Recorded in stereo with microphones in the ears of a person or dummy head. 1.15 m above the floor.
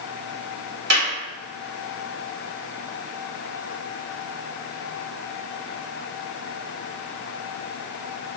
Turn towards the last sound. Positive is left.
turn(degrees=-70)  # may be behind; listen again after turning